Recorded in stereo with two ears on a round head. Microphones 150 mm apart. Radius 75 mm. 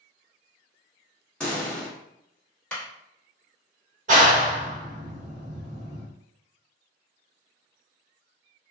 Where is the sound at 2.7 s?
10° left (ahead or behind), 1.1 m.